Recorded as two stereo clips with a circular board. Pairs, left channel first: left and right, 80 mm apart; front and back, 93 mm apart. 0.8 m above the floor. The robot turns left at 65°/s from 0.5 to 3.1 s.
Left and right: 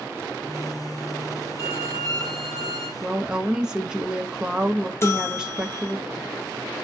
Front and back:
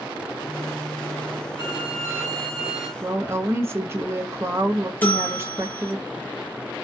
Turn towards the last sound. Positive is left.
turn(degrees=60)